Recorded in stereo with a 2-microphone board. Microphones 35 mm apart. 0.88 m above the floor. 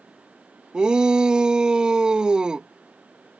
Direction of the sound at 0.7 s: 25° right (ahead or behind).